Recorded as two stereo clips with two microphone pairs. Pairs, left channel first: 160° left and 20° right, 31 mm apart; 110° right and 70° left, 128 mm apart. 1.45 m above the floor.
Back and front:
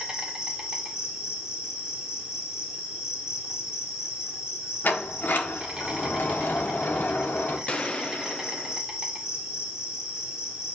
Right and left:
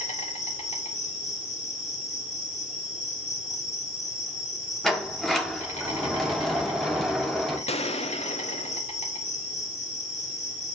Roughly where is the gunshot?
Behind right.